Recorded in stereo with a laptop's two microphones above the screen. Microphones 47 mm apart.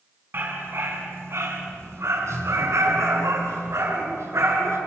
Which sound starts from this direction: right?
A dog barking, at 0.3 s.